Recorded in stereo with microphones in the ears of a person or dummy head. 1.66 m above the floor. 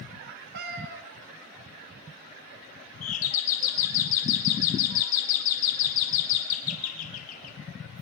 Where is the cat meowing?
55° right (ahead or behind), 1.6 m.